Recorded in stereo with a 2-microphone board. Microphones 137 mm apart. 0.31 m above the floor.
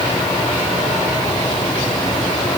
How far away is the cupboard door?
No cupboard door in this recording.